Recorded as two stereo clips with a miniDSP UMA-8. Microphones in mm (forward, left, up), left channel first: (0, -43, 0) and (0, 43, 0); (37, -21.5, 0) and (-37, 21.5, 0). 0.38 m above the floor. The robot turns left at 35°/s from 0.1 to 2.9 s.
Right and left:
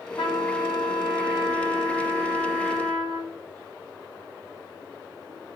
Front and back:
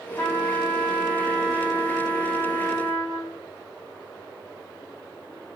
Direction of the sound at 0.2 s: 80° right.